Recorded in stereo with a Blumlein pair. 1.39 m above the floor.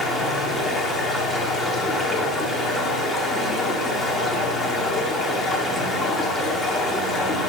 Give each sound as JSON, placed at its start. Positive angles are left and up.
{"t": 0.0, "sound": "running water", "azimuth_deg": 10, "distance_m": 1.6}